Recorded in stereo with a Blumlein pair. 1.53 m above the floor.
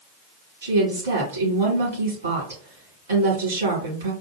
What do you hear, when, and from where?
0.6 s a woman speaking: 65° right, 2.5 m